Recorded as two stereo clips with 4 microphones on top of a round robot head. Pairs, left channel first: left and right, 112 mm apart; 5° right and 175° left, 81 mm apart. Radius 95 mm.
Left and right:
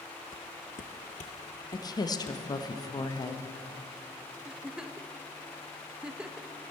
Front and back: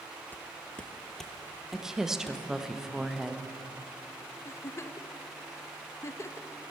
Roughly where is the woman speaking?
Left.